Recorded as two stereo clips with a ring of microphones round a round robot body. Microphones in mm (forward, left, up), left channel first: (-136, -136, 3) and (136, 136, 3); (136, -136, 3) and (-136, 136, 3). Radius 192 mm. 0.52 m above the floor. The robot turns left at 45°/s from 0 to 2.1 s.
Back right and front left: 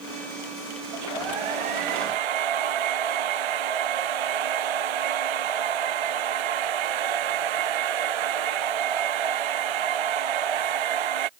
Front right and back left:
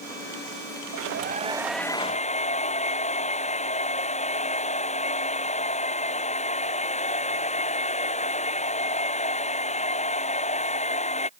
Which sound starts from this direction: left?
A hair dryer, at 0.9 s.